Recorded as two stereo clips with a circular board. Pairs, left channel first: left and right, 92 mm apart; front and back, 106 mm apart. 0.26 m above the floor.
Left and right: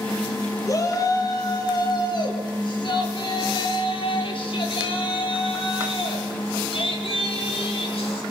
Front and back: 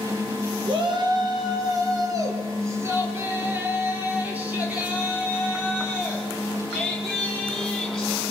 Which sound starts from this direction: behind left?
A shout, at 0.7 s.